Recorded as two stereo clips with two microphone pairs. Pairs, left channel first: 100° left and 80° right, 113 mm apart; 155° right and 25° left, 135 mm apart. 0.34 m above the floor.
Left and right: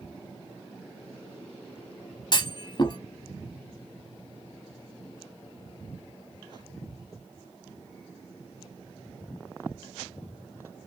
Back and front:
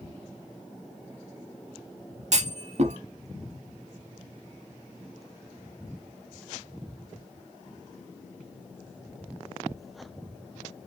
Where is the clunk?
55° left, 0.6 m.